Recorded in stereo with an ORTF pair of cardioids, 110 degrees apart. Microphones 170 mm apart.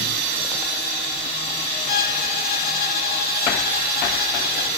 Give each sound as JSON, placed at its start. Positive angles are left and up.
{"t": 1.9, "sound": "a violin", "azimuth_deg": 70, "distance_m": 1.3}